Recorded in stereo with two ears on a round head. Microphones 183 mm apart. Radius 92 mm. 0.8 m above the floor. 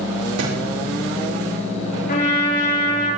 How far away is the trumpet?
About 9 m.